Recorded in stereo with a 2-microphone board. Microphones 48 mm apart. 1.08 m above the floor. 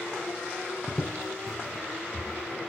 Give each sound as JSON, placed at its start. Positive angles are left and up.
{"t": 0.9, "sound": "footsteps", "side_deg": 10, "distance_m": 1.1}